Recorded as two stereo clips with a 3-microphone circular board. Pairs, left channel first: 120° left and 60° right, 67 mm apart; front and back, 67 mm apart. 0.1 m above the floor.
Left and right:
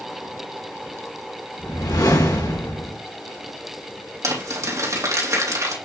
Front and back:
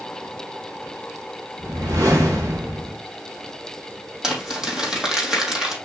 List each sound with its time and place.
1.6 s a whoosh: 145° left, 4 m
4.2 s crumpling: 100° right, 3 m